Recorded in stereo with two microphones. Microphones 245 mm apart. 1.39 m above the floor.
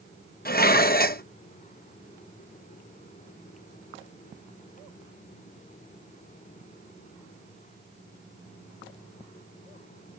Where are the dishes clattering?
35° left (ahead or behind).